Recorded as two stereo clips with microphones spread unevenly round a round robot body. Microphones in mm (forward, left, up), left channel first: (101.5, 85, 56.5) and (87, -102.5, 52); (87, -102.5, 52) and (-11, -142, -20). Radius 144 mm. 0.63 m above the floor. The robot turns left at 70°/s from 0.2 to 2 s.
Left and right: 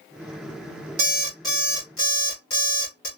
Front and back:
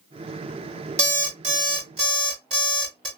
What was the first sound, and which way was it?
An alarm clock, 150° right.